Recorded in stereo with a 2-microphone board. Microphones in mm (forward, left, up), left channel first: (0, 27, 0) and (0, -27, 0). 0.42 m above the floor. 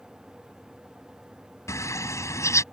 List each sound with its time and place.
1.7 s a bird: 70° left (ahead or behind)